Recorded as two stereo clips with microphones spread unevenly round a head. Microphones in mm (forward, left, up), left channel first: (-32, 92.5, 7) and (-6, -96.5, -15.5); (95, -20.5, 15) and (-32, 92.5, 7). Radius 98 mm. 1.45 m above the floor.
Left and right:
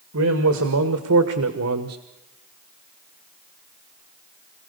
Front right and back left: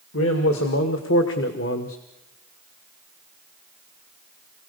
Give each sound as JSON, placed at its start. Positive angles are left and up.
{"t": 0.1, "sound": "a man speaking", "azimuth_deg": -65, "distance_m": 2.5}